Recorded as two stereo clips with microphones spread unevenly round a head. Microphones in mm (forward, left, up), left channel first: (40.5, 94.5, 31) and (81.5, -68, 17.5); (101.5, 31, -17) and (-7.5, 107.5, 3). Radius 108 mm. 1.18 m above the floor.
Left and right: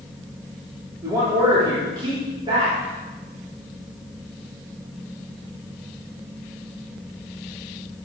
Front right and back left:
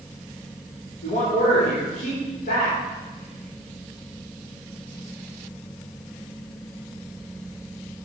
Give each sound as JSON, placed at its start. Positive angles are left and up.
{"t": 1.0, "sound": "a man speaking", "azimuth_deg": -5, "distance_m": 3.5}